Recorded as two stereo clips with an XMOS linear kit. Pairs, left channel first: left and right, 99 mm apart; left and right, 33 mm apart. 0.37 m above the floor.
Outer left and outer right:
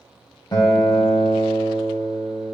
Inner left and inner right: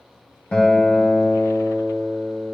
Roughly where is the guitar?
Left.